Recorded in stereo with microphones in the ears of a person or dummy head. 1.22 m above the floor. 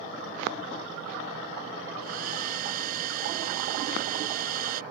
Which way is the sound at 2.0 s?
50° right (ahead or behind).